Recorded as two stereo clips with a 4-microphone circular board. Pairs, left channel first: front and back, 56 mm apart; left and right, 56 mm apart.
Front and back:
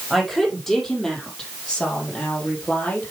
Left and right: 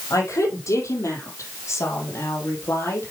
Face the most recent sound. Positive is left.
turn(degrees=55)